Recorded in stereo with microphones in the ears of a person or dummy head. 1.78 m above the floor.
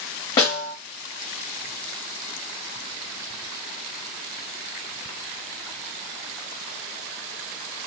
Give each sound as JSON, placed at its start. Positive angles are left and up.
{"t": 0.4, "sound": "a snare drum", "side_deg": 10, "distance_m": 1.5}